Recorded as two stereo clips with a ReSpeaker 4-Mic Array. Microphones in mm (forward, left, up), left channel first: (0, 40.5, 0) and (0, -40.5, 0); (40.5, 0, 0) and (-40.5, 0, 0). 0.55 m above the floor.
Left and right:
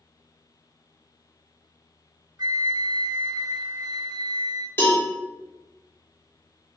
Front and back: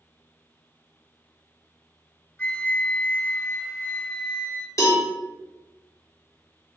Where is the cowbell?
35° left, 1.2 m.